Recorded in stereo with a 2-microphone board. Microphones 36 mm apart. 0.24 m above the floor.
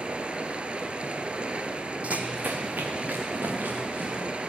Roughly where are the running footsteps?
Right.